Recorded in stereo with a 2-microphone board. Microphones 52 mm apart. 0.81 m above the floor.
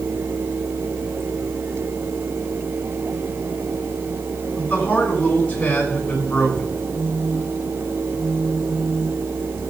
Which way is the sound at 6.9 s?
10° right (ahead or behind).